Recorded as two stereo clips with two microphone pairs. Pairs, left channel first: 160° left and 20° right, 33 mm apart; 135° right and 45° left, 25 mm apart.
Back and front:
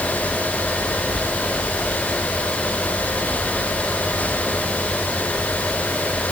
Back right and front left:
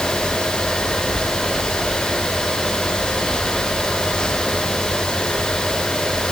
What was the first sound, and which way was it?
Only background noise.